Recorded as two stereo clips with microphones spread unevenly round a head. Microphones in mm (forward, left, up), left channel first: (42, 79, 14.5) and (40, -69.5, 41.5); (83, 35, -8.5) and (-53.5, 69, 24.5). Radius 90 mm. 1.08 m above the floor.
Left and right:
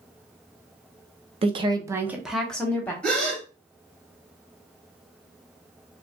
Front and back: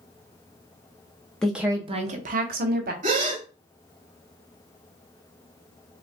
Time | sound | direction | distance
1.4 | a woman speaking | 65° right | 0.7 m
3.0 | a gasp | straight behind | 1.4 m